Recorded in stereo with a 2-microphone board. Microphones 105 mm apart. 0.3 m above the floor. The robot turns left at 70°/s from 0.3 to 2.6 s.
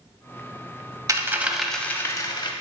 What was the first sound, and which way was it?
A dropped coin, 140° right.